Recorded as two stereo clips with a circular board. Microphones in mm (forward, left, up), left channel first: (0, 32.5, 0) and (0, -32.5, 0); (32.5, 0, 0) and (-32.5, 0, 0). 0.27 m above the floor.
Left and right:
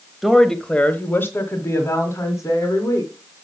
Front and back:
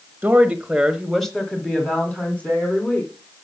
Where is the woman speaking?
175° right, 1.0 m; by 3.1 s 60° left, 2.5 m.